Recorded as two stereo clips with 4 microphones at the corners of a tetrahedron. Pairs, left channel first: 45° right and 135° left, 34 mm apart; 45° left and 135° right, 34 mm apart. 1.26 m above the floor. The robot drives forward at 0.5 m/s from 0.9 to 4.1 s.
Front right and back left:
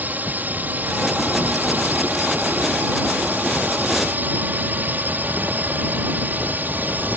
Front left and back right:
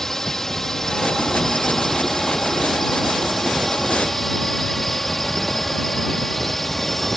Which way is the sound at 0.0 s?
125° left.